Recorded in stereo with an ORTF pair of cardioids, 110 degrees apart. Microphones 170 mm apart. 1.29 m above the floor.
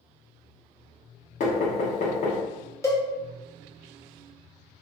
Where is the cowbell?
15° left, 0.7 m.